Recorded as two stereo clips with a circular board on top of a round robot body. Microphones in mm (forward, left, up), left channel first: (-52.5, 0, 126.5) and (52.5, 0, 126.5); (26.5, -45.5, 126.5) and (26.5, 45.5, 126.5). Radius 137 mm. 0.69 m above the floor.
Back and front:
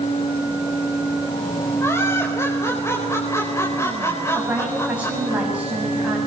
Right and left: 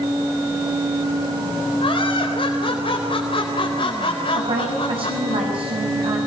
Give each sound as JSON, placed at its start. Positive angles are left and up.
{"t": 1.8, "sound": "laughter", "azimuth_deg": -115, "distance_m": 4.5}
{"t": 4.3, "sound": "a woman speaking", "azimuth_deg": 75, "distance_m": 6.0}